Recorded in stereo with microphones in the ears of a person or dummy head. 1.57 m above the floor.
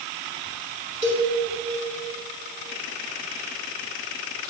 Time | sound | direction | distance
1.0 | a cowbell | 45° right (ahead or behind) | 4 m